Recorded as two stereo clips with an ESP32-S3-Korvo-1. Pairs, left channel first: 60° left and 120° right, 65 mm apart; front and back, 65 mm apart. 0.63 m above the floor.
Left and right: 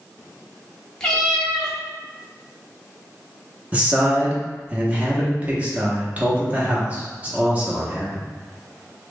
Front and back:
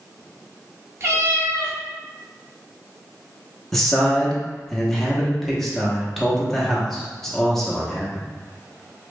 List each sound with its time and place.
1.0 s a cat meowing: 140° left, 0.9 m
3.7 s a man speaking: 80° right, 0.8 m